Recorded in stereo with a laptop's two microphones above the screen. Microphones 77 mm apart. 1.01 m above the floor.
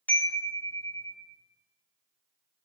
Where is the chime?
20° left (ahead or behind), 0.6 m.